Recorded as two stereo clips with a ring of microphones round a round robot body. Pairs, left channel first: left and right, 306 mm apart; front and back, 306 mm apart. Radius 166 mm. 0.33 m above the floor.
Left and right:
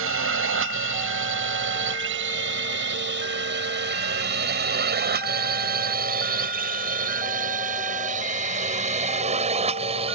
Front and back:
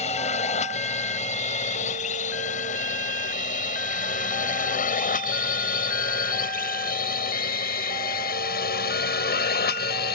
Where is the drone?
60° right; by 10.2 s 30° right.